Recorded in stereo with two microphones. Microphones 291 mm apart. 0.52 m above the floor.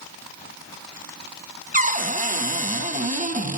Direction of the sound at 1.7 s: 25° right (ahead or behind).